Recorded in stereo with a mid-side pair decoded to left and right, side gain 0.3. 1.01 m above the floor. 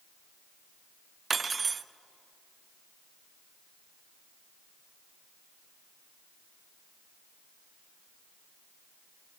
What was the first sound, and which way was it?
Cutlery clinking, 50° right.